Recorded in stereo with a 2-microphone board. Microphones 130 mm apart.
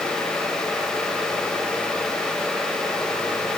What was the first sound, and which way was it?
Only background noise.